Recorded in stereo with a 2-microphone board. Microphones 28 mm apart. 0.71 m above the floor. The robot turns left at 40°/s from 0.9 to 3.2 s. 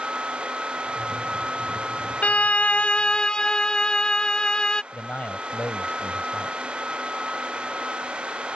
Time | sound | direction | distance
2.2 | a violin | 70° left | ?
4.9 | a man speaking | 65° left (ahead or behind) | ?